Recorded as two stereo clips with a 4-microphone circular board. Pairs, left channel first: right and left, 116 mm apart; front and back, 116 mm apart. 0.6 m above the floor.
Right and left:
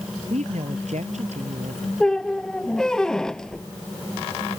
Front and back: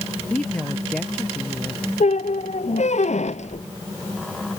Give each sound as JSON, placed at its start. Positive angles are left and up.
{"t": 0.3, "sound": "a woman speaking", "azimuth_deg": 80}
{"t": 2.0, "sound": "a squeak", "azimuth_deg": -5}